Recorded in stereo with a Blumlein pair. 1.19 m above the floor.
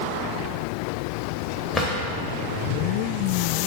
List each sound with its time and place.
1.7 s a drawer: 15° left, 0.9 m